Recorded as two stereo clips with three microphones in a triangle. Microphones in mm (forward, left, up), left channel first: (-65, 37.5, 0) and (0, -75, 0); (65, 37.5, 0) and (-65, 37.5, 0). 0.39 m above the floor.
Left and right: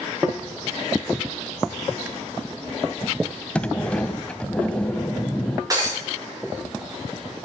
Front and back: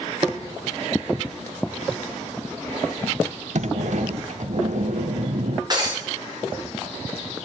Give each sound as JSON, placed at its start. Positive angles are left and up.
{"t": 3.5, "sound": "a sliding door", "azimuth_deg": -160, "distance_m": 0.6}
{"t": 5.7, "sound": "breaking glass", "azimuth_deg": -125, "distance_m": 4.0}